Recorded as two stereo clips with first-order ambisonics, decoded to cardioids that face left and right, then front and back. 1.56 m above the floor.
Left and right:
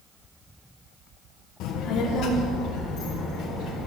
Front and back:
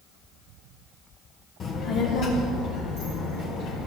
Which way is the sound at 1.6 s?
60° left.